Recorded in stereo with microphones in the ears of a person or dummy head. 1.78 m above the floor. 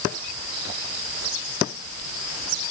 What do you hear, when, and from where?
Only background noise.